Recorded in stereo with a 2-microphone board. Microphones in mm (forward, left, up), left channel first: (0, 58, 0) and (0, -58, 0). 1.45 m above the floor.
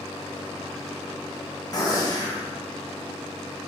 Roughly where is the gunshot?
Left.